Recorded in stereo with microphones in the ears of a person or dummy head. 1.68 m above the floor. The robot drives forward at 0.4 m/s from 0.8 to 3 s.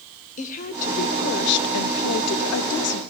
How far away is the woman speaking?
About 0.7 m.